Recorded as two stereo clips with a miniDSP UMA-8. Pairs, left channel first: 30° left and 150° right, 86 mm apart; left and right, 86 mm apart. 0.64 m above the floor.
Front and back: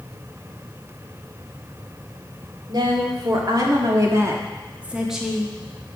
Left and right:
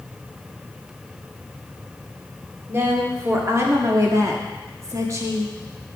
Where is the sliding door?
I don't hear a sliding door.